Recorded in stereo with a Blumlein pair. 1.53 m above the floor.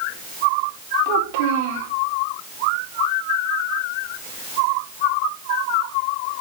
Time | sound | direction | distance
1.1 | a child speaking | 50° right | 3.5 m